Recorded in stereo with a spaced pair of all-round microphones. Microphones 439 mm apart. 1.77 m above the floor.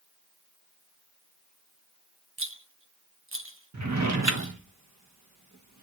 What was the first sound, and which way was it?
A rattle, 30° right (ahead or behind).